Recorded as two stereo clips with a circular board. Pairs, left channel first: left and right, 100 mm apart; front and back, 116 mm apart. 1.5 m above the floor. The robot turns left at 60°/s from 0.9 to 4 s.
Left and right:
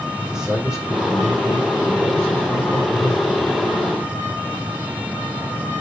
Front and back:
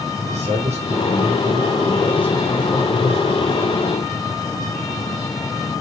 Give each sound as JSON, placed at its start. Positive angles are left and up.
{"t": 0.2, "sound": "a man speaking", "azimuth_deg": -175, "distance_m": 5.5}